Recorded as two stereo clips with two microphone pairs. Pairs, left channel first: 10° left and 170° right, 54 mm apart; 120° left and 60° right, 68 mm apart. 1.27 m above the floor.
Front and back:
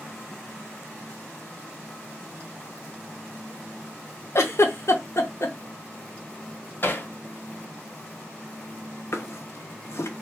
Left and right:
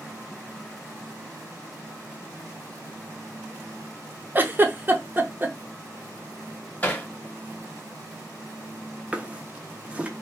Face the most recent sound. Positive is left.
turn(degrees=10)